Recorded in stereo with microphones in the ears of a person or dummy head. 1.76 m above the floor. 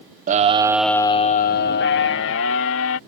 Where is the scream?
45° right (ahead or behind); by 3.0 s 75° left (ahead or behind).